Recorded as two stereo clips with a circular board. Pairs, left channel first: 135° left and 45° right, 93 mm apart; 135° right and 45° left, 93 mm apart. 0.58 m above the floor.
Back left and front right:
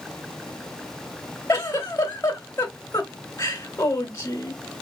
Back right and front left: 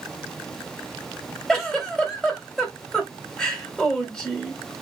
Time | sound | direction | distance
1.5 | a giggle | 145° left | 1.3 m